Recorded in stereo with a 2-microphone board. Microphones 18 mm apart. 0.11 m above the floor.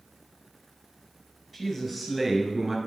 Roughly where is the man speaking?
Centre.